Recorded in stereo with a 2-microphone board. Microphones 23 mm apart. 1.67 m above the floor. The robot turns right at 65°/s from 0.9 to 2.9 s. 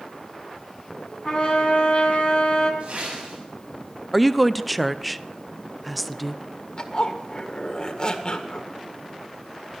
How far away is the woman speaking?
About 0.7 m.